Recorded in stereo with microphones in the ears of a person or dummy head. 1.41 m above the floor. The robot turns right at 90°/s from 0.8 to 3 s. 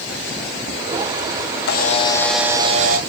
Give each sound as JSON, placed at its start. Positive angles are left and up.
{"t": 1.7, "sound": "a camera shutter", "azimuth_deg": 120, "distance_m": 1.2}